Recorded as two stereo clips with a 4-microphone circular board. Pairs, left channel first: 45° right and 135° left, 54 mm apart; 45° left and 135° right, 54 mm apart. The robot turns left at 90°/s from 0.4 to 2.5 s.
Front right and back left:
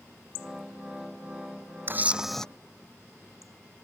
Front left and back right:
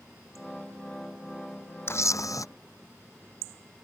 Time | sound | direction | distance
1.9 | a camera shutter | 85° left | ?